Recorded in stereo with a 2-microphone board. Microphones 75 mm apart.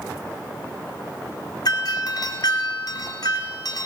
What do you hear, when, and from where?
1.6 s a doorbell: 60° left (ahead or behind), 3.5 m